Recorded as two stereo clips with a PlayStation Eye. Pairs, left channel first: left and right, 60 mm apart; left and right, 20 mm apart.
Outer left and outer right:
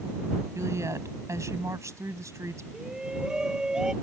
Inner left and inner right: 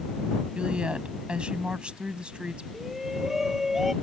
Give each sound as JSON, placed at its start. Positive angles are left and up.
{"t": 0.6, "sound": "a woman speaking", "side_deg": -65}
{"t": 2.7, "sound": "a shout", "side_deg": -15}